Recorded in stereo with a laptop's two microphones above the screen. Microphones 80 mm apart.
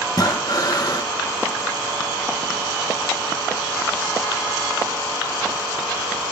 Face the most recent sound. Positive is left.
turn(degrees=50)  # may be behind; listen again after turning